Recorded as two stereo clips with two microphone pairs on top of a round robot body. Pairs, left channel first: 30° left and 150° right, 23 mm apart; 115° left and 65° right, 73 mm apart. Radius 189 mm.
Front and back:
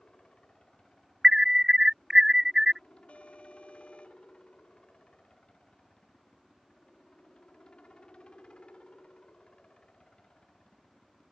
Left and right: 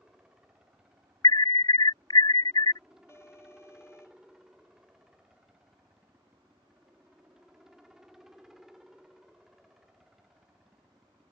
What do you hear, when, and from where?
0.0 s a helicopter: 15° left; by 11.3 s 20° left
1.2 s an alarm: 140° left
3.1 s an alarm: 60° left